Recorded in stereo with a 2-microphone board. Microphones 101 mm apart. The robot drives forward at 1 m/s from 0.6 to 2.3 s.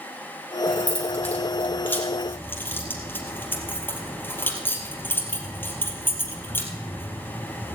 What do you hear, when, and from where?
0.7 s keys jangling: 15° left (ahead or behind), 4.5 m; by 7.8 s 20° left (ahead or behind), 3 m